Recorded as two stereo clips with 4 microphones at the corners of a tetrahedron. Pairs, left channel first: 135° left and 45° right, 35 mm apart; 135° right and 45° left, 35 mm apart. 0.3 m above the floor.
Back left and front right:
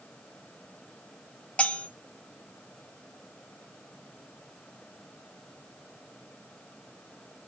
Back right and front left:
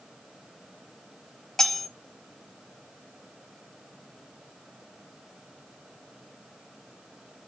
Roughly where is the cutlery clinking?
Behind left.